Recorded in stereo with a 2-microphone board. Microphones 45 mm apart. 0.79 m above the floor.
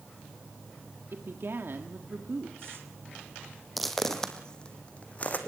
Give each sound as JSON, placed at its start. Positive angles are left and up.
{"t": 1.1, "sound": "a woman speaking", "side_deg": -60, "distance_m": 1.5}
{"t": 3.8, "sound": "footsteps", "side_deg": 0, "distance_m": 1.9}